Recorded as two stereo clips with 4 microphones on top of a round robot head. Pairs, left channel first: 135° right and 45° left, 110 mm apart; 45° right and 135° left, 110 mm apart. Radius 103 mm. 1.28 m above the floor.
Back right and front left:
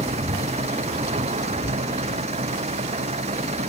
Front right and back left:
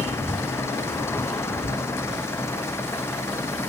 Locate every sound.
0.0 s an engine running: 25° left
1.6 s writing: 175° left